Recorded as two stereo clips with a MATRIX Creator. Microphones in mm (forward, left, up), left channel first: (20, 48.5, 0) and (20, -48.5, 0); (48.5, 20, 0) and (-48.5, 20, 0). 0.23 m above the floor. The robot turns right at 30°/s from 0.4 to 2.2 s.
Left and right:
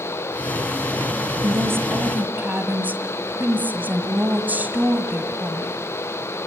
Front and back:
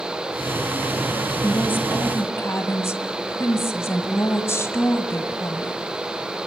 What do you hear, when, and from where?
1.4 s a woman speaking: 55° right, 1.8 m; by 5.8 s 35° right, 1.8 m